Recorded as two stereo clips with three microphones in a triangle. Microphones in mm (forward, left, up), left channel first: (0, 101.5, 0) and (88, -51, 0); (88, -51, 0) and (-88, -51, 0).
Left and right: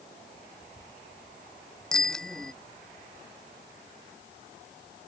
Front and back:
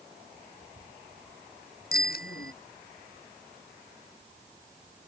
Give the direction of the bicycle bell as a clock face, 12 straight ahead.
11 o'clock.